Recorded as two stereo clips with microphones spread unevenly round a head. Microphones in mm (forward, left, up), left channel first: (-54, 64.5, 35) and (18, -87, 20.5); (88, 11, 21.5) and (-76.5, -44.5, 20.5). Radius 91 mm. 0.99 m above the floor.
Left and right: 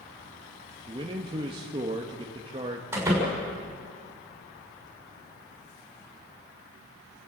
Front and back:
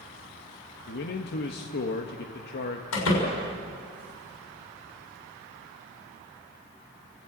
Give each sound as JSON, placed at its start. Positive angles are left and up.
{"t": 0.9, "sound": "a man speaking", "azimuth_deg": -5, "distance_m": 1.5}
{"t": 2.9, "sound": "a door slam", "azimuth_deg": 15, "distance_m": 6.0}